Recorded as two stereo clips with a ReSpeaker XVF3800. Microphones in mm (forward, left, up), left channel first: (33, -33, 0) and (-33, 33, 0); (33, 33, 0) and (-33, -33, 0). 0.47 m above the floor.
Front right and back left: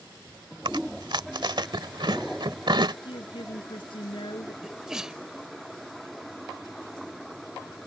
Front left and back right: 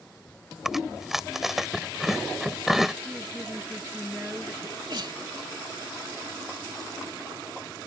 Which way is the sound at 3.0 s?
60° right.